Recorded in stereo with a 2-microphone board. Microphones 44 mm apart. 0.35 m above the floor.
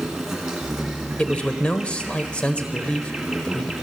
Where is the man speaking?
25° left (ahead or behind), 1.0 m.